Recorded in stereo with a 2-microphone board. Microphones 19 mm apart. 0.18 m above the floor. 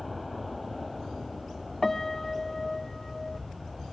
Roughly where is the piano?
Centre.